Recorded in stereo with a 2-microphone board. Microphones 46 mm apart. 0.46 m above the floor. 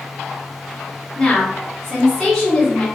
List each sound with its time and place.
1.1 s a woman speaking: 15° left (ahead or behind), 1.1 m